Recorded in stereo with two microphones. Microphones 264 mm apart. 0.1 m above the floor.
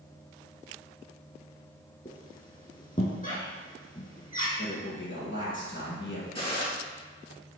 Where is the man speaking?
45° left (ahead or behind), 2.5 m.